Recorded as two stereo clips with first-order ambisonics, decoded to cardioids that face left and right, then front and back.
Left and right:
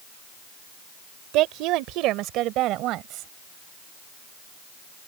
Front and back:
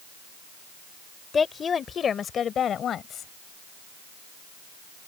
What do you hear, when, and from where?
1.3 s a woman speaking: 70° right; by 3.3 s 55° right